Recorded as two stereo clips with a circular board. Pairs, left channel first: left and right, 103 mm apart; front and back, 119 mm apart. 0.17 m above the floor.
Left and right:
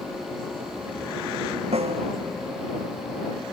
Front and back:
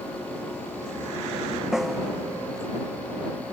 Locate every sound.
1.7 s a snare drum: 95° right